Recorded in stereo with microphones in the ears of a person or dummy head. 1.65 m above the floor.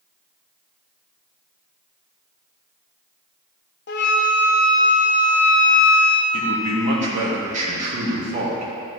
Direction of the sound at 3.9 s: 55° left (ahead or behind).